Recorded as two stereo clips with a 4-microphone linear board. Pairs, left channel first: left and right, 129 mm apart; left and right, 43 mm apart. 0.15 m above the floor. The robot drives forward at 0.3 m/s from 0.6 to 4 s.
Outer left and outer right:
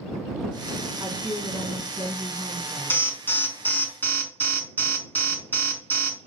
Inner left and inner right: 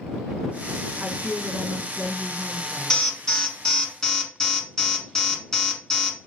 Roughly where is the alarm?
Centre.